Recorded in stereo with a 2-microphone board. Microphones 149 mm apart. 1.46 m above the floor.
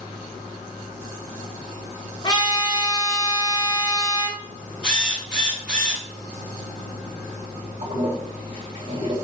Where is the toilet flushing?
35° right (ahead or behind), 2 m.